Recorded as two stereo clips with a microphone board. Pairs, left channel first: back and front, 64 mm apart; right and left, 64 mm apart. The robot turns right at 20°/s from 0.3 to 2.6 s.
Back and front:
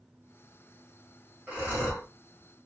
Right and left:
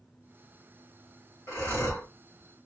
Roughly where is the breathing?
Ahead right.